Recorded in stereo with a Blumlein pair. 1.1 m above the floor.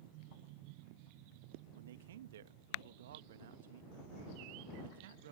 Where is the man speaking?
60° right.